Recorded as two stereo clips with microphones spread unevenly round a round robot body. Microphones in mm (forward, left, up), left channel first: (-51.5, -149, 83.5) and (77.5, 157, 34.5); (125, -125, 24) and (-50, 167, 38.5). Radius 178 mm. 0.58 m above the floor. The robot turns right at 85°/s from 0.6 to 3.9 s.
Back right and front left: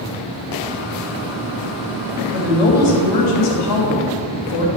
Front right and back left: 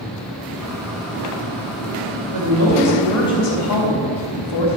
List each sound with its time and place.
2.3 s a woman speaking: 145° left, 3 m; by 4.7 s 80° right, 3 m